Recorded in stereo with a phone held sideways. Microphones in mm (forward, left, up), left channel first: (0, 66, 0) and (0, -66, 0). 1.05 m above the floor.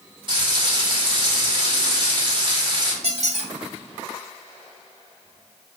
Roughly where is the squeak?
Right.